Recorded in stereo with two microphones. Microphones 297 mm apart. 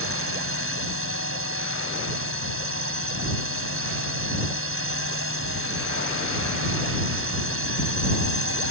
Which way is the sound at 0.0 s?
45° right (ahead or behind).